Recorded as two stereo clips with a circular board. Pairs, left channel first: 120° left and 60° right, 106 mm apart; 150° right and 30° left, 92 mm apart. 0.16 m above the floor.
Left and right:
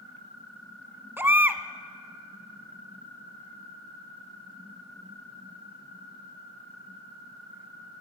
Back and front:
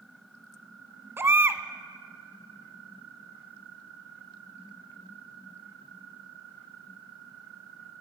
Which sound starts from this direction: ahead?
A baby crying, at 1.2 s.